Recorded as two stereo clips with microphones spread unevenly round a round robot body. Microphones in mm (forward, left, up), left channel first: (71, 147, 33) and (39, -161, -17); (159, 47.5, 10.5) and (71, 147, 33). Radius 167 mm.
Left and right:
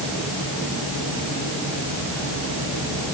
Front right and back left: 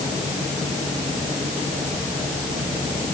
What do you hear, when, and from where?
Only background noise.